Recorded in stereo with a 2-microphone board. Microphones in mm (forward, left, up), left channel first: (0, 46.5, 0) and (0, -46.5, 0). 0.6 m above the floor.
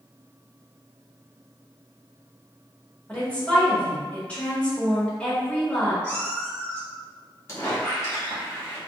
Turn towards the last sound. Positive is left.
turn(degrees=30)  # may be behind; listen again after turning